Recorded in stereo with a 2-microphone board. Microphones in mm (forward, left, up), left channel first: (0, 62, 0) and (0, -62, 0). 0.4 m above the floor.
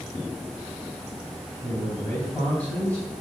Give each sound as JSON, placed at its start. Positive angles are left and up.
{"t": 1.6, "sound": "a man speaking", "side_deg": 15, "distance_m": 2.5}